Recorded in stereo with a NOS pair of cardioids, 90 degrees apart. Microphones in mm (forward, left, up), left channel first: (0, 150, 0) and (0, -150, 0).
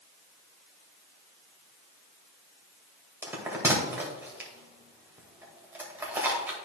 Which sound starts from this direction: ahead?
A bell, at 3.2 s.